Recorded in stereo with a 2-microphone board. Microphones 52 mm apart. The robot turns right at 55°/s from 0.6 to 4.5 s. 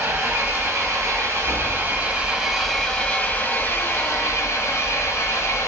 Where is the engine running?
115° right, 1.4 m; by 5.7 s 100° left, 1.4 m.